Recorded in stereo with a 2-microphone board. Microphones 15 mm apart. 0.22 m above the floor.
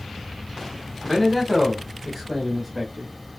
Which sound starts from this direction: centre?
A man speaking, at 1.0 s.